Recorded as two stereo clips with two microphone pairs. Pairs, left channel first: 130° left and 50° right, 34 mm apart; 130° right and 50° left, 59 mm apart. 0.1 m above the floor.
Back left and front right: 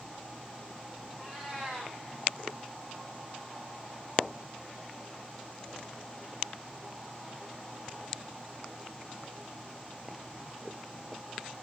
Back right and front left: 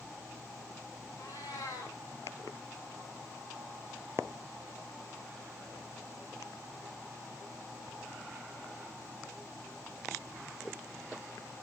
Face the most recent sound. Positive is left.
turn(degrees=-120)